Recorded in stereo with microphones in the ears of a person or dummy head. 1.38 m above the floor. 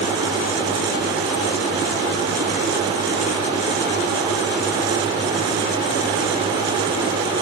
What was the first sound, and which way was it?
Only background noise.